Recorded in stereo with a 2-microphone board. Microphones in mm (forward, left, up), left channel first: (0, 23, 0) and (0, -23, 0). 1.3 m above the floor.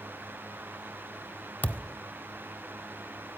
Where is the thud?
40° left (ahead or behind), 1.1 m.